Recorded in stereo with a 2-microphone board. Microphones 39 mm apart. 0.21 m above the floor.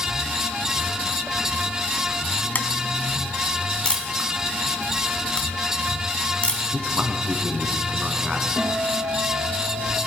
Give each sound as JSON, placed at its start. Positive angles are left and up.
{"t": 2.5, "sound": "tapping", "side_deg": 50, "distance_m": 0.8}
{"t": 3.9, "sound": "a camera shutter", "side_deg": 25, "distance_m": 1.9}
{"t": 6.7, "sound": "a man speaking", "side_deg": -20, "distance_m": 1.7}
{"t": 8.6, "sound": "a guitar", "side_deg": 65, "distance_m": 7.0}